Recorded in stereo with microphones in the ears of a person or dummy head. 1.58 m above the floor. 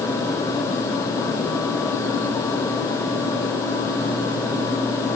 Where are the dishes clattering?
No dishes clattering in this recording.